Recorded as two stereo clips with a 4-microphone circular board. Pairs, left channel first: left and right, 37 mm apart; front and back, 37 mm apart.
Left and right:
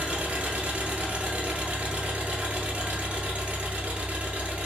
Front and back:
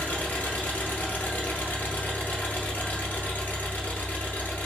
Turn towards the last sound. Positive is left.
turn(degrees=-40)